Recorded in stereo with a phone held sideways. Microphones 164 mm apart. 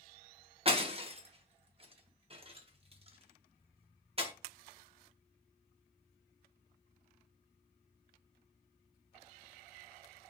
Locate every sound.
0.7 s breaking glass: 35° right (ahead or behind), 0.5 m